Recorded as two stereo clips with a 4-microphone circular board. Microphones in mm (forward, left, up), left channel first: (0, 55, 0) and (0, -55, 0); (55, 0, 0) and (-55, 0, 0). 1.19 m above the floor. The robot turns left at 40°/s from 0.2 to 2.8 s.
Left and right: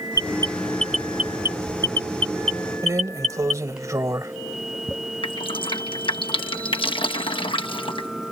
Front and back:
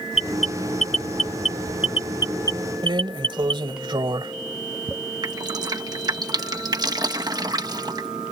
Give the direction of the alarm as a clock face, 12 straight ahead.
11 o'clock.